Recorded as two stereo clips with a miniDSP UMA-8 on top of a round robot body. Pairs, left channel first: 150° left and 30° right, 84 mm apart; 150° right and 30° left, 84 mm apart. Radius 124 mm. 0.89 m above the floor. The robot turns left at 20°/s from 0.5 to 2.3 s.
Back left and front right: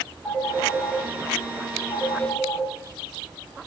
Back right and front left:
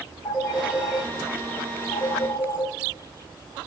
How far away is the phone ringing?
About 4 m.